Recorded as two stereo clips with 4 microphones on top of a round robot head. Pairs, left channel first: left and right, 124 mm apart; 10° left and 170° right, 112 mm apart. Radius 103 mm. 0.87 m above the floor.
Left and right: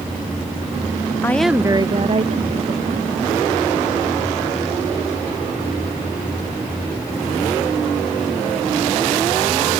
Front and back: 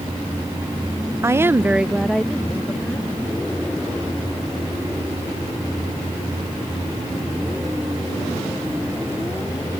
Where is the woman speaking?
145° left; by 3.1 s 70° right.